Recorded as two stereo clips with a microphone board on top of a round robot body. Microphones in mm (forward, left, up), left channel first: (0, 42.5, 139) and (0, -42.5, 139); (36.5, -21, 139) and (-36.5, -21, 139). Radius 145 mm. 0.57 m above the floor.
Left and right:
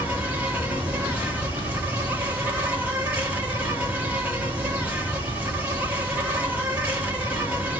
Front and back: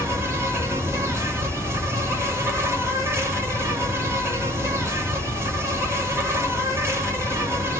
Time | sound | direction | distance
0.0 | an insect | 155° right | 1.5 m